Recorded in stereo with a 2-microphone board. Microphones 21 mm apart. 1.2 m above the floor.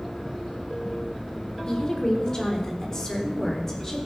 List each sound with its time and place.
1.7 s a woman speaking: 35° left (ahead or behind), 4 m; by 4.1 s 25° left (ahead or behind), 4.5 m